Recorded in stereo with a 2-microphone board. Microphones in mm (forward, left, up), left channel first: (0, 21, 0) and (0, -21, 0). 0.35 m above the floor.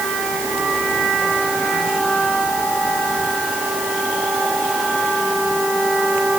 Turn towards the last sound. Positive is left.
No sound to turn to.